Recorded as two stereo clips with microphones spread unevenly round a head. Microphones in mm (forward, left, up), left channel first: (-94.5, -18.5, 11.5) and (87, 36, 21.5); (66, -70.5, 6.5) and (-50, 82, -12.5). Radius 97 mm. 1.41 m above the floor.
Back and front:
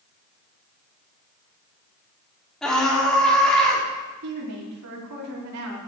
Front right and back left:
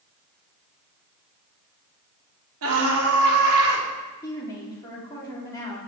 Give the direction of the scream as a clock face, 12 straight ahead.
8 o'clock.